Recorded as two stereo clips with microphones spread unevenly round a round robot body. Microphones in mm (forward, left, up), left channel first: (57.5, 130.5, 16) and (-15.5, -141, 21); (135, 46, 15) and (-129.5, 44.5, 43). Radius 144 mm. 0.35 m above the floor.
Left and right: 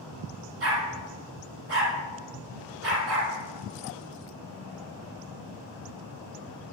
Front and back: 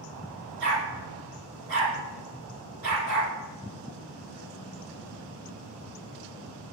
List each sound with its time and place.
0.6 s a dog barking: 150° right, 4 m